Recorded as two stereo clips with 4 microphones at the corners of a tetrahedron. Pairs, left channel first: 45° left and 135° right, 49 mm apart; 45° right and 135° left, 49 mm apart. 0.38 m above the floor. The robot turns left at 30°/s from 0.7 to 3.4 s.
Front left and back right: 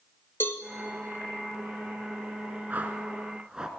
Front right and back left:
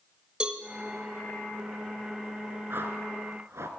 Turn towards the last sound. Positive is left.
turn(degrees=150)